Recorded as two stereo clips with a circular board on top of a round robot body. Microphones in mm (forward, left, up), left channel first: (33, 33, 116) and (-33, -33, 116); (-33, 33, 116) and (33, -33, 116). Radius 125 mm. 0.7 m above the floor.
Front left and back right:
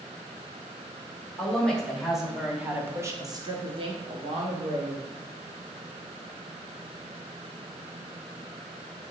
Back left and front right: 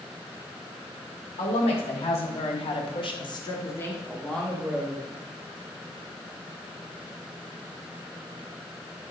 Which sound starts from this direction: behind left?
A woman speaking, at 1.4 s.